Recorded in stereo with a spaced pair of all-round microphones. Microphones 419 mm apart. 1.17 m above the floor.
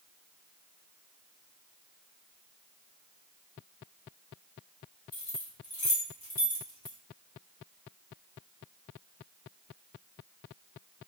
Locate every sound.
5.1 s keys jangling: 55° left (ahead or behind), 0.9 m